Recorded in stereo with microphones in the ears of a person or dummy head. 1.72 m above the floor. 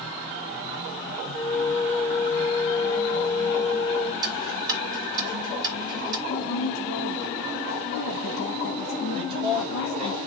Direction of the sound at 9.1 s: 25° right (ahead or behind).